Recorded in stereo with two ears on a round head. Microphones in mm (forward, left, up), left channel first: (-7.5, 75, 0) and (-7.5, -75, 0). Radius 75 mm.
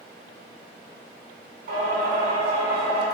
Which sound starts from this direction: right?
Singing, at 1.7 s.